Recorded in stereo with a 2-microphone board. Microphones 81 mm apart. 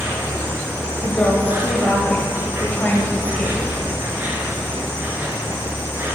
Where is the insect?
25° right (ahead or behind), 1.4 m.